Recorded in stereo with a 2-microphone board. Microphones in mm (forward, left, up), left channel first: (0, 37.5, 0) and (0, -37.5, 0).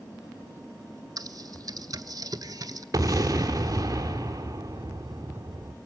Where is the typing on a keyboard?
50° right (ahead or behind), 0.7 m.